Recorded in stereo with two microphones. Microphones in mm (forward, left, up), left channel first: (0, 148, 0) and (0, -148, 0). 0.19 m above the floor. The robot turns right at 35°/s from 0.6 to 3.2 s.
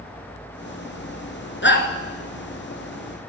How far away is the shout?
About 2.5 m.